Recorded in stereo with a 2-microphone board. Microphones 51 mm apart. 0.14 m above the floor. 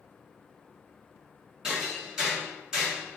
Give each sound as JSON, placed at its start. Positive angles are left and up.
{"t": 1.6, "sound": "hammering", "side_deg": -15, "distance_m": 1.5}